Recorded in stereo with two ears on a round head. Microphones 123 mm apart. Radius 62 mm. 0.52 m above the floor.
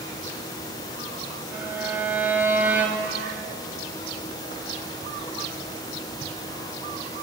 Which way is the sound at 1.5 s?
15° right (ahead or behind).